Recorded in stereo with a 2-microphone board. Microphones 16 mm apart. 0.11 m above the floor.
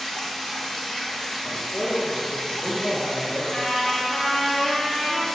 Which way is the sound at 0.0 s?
45° left (ahead or behind).